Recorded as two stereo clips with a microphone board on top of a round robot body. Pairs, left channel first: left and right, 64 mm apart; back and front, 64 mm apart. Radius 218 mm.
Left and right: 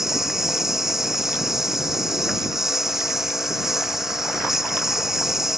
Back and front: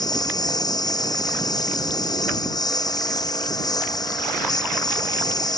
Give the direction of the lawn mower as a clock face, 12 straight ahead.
6 o'clock.